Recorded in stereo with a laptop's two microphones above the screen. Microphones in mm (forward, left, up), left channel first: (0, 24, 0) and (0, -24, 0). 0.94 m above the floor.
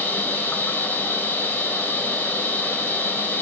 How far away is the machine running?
About 3 m.